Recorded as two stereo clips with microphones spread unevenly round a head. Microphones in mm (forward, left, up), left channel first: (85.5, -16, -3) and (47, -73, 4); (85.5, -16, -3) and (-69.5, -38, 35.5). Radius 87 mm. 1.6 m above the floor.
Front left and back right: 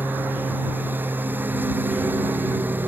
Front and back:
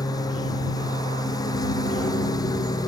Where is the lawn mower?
60° right.